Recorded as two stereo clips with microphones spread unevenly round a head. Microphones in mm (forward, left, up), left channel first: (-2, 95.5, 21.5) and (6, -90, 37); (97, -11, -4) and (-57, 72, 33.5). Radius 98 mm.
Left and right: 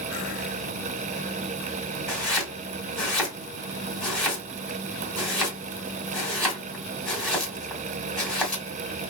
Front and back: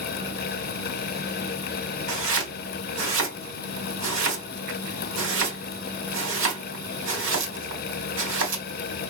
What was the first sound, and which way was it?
Chopping, straight behind.